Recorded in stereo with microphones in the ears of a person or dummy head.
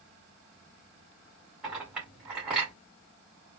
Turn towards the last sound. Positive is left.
turn(degrees=-10)  # may be behind; listen again after turning